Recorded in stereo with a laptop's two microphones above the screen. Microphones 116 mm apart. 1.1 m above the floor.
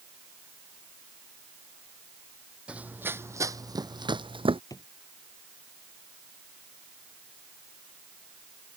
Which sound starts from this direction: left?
A drawer, at 4.7 s.